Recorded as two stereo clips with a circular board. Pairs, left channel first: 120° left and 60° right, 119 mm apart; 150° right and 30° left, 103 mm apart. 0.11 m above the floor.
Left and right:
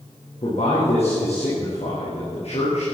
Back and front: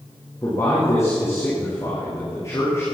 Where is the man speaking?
145° left, 6 m.